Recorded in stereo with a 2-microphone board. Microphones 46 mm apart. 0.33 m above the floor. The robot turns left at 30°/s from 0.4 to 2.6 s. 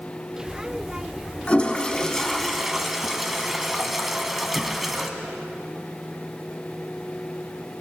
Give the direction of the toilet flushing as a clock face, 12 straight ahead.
11 o'clock.